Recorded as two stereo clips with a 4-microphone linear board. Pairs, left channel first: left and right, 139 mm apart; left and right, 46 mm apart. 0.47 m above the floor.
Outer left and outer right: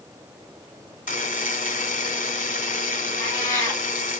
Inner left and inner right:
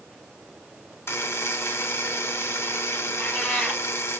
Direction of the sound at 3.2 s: 20° left (ahead or behind).